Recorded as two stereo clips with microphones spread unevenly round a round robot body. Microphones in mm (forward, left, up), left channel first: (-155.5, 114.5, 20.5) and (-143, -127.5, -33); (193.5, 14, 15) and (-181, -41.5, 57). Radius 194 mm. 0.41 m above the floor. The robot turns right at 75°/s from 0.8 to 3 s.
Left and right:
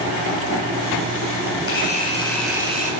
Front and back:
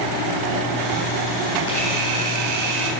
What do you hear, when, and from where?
1.7 s a camera shutter: 125° left, 4 m; by 2.9 s 140° right, 4 m